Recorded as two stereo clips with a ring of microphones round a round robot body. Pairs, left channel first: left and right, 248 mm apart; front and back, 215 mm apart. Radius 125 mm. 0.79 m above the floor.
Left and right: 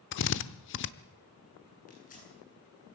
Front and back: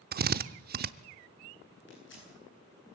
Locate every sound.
0.1 s a drill: 135° left, 0.8 m
1.9 s tearing paper: 30° left, 9 m